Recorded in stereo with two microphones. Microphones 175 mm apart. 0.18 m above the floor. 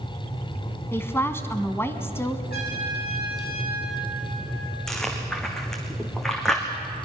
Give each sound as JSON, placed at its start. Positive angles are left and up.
{"t": 0.9, "sound": "a woman speaking", "side_deg": 15, "distance_m": 1.1}
{"t": 2.5, "sound": "a trumpet", "side_deg": 65, "distance_m": 6.5}
{"t": 4.9, "sound": "chewing", "side_deg": 5, "distance_m": 3.0}